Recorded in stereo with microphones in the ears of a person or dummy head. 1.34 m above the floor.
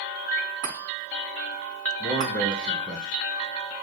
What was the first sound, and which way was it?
A chime, 35° right (ahead or behind).